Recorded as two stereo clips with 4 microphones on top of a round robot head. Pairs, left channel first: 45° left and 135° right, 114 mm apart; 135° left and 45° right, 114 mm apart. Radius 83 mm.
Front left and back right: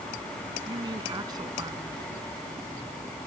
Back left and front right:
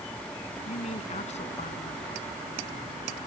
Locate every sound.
0.7 s a woman speaking: 165° left